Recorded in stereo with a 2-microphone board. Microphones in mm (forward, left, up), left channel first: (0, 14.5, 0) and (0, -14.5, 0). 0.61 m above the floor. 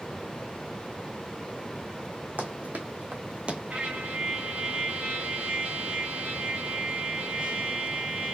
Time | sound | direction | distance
2.4 | running footsteps | 70° right (ahead or behind) | 2.0 m
3.7 | a trumpet | 65° right (ahead or behind) | 2 m